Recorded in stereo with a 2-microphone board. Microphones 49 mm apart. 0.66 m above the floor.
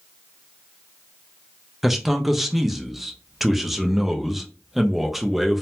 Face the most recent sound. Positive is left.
turn(degrees=0)  # may be behind; listen again after turning